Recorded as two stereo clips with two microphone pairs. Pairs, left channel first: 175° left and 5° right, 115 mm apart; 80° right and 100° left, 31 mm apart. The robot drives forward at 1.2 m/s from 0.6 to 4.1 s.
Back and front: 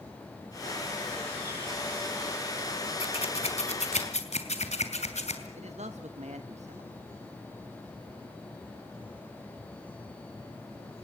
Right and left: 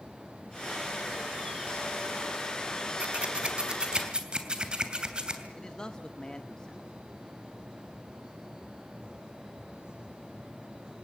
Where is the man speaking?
10° right, 1.3 m.